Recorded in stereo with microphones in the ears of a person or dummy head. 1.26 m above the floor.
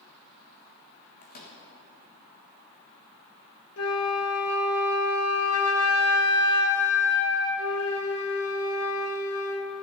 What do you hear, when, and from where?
1.2 s a microwave: 50° left (ahead or behind), 1.4 m
3.8 s a flute: 65° left (ahead or behind), 0.9 m